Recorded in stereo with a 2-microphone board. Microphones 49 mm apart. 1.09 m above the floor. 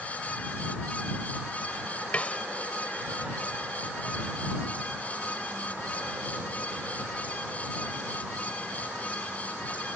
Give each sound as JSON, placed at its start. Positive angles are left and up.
{"t": 2.1, "sound": "a snare drum", "side_deg": 25}